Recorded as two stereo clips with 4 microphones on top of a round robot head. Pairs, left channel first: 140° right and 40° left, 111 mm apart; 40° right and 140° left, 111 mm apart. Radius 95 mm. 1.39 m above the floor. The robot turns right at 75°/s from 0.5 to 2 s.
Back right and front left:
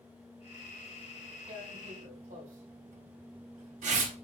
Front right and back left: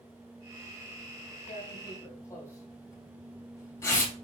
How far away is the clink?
I don't hear a clink.